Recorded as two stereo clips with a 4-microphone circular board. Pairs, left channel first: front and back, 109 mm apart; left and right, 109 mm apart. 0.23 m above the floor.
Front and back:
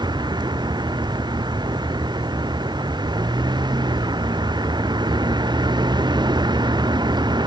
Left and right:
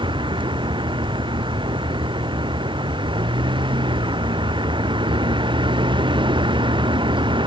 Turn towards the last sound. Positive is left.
turn(degrees=-130)